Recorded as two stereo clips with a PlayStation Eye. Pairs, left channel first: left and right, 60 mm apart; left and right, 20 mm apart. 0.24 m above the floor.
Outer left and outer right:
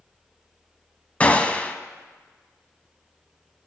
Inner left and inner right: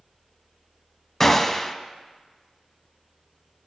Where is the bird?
I don't hear a bird.